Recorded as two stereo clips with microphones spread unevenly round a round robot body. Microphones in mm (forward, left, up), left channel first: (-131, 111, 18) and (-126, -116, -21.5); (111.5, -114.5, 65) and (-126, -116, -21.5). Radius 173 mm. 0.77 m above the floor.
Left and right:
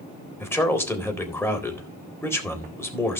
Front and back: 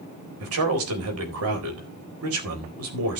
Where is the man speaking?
175° left, 4 m.